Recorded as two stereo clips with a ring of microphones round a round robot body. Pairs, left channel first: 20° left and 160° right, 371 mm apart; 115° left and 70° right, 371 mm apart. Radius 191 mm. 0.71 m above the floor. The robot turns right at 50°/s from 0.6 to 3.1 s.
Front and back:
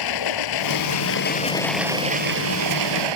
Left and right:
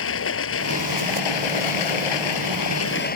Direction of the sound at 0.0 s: 55° left.